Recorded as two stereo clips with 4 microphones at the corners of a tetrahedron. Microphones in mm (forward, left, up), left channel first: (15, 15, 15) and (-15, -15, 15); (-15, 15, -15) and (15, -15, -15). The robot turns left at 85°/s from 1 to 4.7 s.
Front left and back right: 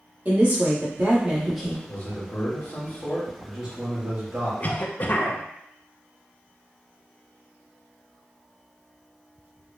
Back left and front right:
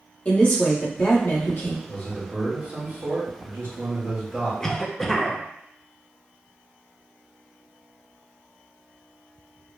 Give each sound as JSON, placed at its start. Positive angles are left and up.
{"t": 0.2, "sound": "a woman speaking", "azimuth_deg": -175, "distance_m": 1.4}
{"t": 1.9, "sound": "a man speaking", "azimuth_deg": 85, "distance_m": 1.8}
{"t": 4.6, "sound": "a cough", "azimuth_deg": 70, "distance_m": 0.6}